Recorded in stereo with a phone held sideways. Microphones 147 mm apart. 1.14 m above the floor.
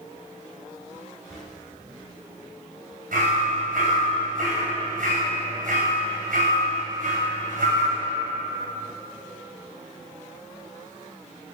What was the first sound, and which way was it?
Whispering, 55° right (ahead or behind).